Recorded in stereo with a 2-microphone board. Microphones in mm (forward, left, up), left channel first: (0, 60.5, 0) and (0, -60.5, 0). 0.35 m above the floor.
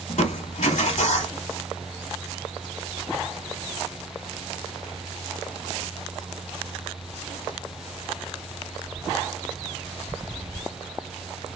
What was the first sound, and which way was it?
Crushing, 80° left.